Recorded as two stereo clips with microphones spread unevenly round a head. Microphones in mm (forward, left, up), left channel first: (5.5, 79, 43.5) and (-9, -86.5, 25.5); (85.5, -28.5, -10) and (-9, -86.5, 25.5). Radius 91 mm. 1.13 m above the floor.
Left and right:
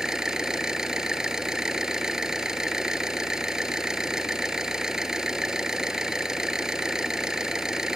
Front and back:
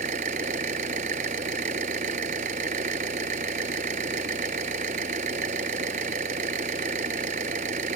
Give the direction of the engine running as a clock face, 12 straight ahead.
6 o'clock.